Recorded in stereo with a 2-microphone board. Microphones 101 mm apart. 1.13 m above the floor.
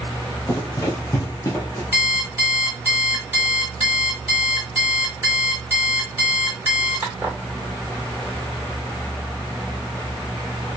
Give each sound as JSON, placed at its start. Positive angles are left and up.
{"t": 0.5, "sound": "running footsteps", "side_deg": 30, "distance_m": 1.2}
{"t": 1.9, "sound": "an alarm clock", "side_deg": -20, "distance_m": 1.4}